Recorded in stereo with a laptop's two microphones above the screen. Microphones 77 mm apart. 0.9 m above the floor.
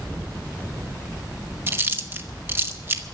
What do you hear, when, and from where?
1.7 s chewing: 30° right (ahead or behind), 1.0 m